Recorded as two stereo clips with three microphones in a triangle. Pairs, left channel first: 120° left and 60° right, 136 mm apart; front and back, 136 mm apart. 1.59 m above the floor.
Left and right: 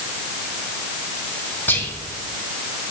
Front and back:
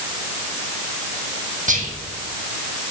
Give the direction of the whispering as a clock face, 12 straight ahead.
5 o'clock.